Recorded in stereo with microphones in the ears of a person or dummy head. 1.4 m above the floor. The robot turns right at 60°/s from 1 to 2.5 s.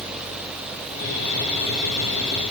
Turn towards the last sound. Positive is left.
No sound to turn to.